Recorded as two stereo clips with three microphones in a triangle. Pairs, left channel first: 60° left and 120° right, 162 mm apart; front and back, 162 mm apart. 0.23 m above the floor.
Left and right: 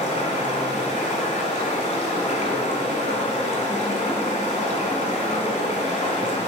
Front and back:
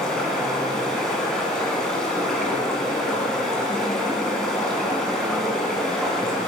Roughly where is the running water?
Left.